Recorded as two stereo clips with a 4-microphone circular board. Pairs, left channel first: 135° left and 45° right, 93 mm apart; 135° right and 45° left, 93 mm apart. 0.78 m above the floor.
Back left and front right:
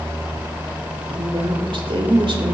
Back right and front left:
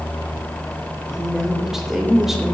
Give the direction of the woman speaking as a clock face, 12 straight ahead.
1 o'clock.